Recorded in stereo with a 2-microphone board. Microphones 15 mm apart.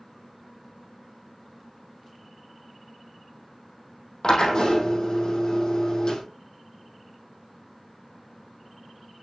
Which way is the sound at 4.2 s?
60° left (ahead or behind).